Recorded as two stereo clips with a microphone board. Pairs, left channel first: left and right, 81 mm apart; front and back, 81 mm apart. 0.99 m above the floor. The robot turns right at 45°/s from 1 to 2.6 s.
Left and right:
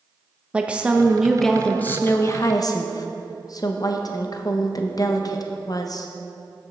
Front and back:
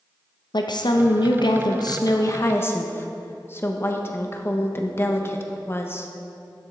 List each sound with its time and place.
0.5 s a woman speaking: 15° right, 0.6 m; by 6.1 s 55° left, 0.6 m